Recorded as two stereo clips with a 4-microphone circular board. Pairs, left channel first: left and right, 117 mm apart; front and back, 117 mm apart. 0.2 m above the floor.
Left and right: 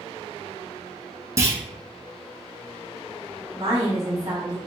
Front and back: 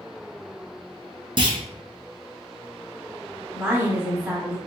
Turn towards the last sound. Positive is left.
turn(degrees=-130)